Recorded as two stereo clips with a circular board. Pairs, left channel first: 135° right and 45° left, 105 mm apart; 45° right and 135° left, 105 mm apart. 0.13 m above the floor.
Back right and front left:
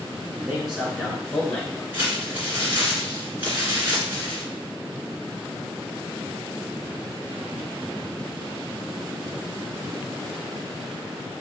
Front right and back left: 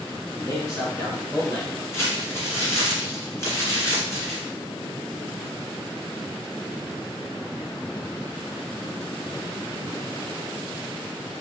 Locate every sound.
0.3 s a man speaking: 20° right, 1.7 m; by 1.8 s 65° right, 1.9 m
1.9 s crumpling: 10° right, 1.9 m